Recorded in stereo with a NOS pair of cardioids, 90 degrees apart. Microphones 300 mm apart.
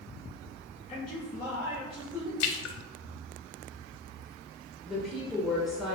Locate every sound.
0.9 s a man speaking: 20° left, 0.7 m; by 2.3 s 5° right, 1.4 m
2.4 s a splash: 60° left, 0.5 m
4.9 s a woman speaking: straight ahead, 0.7 m